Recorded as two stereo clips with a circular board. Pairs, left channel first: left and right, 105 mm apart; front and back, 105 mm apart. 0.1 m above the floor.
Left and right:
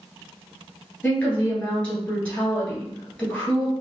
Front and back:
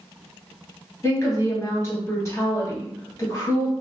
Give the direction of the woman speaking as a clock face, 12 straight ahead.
11 o'clock.